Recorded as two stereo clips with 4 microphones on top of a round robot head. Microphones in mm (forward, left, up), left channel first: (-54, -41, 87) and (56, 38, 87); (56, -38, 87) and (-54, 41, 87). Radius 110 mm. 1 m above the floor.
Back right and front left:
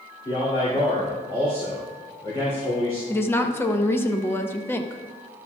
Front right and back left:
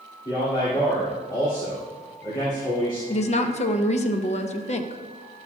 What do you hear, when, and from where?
0.2 s a man speaking: 95° right, 2.5 m
3.1 s a woman speaking: 70° right, 0.9 m